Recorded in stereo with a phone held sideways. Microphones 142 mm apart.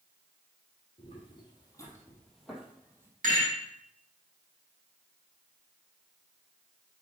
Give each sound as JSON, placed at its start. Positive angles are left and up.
{"t": 1.0, "sound": "footsteps", "side_deg": 45, "distance_m": 3.0}
{"t": 3.2, "sound": "a rattle", "side_deg": -75, "distance_m": 4.5}